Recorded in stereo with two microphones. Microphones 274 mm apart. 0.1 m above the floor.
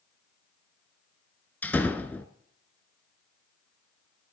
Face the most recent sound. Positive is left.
turn(degrees=5)  # may be behind; listen again after turning